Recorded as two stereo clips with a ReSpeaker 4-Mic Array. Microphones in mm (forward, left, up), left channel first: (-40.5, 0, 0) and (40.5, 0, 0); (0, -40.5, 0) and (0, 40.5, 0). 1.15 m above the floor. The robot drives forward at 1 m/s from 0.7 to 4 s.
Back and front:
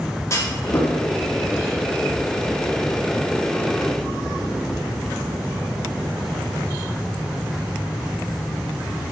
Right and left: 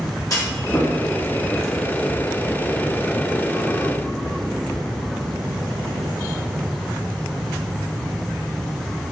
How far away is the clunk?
About 2.5 m.